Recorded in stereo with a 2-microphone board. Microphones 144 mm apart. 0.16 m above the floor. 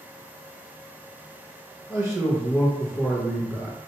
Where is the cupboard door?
No cupboard door in this recording.